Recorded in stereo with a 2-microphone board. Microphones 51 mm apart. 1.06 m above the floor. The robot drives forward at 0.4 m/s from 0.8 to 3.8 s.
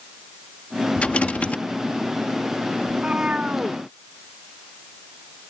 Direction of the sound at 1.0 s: 25° left (ahead or behind).